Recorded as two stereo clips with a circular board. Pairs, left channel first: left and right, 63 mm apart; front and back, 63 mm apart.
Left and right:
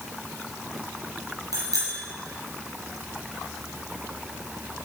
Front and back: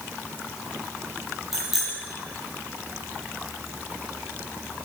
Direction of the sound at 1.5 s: 95° right.